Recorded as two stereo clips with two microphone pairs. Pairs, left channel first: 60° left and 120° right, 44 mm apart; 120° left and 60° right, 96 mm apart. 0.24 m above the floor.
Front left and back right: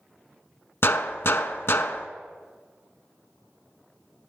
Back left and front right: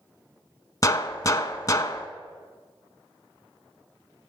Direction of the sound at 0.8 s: 75° left.